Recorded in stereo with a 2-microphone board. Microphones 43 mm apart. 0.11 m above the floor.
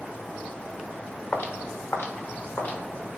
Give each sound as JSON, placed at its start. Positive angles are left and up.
{"t": 1.3, "sound": "footsteps", "side_deg": 60, "distance_m": 0.8}